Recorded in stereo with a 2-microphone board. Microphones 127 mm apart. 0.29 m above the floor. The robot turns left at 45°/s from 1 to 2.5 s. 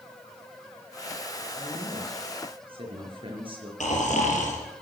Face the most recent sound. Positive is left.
turn(degrees=70)  # may be behind; listen again after turning